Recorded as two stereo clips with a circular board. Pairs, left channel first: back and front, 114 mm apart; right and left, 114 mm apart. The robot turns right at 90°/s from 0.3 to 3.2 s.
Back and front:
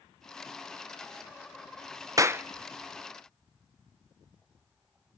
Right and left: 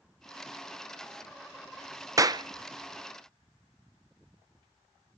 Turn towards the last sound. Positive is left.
turn(degrees=135)